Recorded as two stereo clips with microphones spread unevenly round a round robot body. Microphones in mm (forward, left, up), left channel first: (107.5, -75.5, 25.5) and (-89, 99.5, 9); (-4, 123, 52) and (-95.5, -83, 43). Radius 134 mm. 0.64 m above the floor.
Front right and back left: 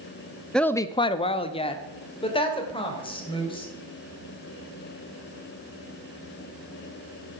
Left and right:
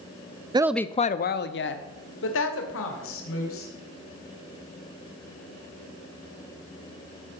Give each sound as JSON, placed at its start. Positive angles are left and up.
{"t": 0.5, "sound": "a woman speaking", "azimuth_deg": -135, "distance_m": 0.5}